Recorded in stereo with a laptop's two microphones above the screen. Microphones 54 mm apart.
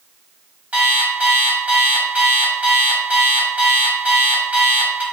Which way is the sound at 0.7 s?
30° right (ahead or behind).